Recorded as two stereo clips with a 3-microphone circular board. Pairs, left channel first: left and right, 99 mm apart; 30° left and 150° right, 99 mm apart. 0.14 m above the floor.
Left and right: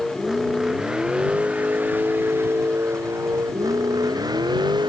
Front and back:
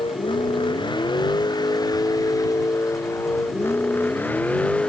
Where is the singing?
I don't hear singing.